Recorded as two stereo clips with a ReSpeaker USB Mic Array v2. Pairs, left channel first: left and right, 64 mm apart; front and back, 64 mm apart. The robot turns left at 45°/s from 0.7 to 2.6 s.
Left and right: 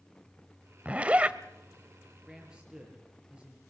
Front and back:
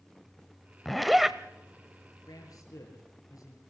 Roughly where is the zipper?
Right.